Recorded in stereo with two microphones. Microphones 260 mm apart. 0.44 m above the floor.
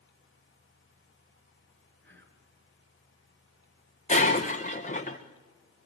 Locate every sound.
2.0 s whispering: 45° right (ahead or behind), 4.5 m
4.1 s breaking glass: 30° left (ahead or behind), 2.5 m